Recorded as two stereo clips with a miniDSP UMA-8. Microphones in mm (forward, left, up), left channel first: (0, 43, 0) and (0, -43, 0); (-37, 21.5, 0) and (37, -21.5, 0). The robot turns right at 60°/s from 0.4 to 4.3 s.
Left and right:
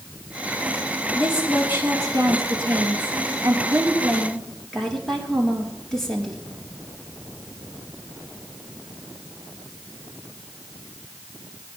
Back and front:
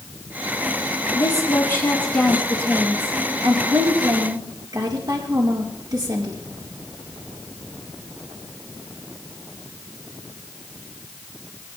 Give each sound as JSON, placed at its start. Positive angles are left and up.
{"t": 1.1, "sound": "a woman speaking", "azimuth_deg": 175, "distance_m": 5.5}